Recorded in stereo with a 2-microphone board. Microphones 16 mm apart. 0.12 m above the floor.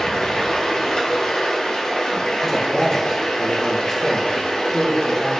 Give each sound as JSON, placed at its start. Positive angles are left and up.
{"t": 0.0, "sound": "running water", "side_deg": 55, "distance_m": 1.0}
{"t": 2.5, "sound": "a man speaking", "side_deg": 35, "distance_m": 1.3}